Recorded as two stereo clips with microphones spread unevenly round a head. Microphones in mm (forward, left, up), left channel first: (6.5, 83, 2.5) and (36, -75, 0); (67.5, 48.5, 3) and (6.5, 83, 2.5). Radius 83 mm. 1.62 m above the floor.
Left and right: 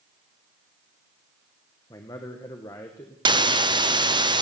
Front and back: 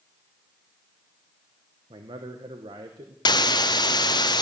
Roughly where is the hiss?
Ahead.